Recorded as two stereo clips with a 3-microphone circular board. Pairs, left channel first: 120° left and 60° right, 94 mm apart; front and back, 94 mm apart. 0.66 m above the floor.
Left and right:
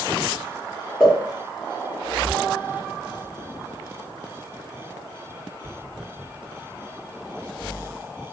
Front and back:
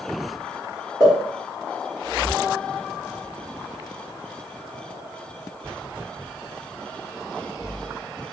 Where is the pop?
40° left, 1.6 m.